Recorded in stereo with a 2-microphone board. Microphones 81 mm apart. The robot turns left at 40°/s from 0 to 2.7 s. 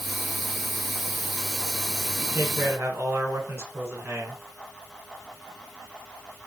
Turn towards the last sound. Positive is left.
turn(degrees=-30)  # may be behind; listen again after turning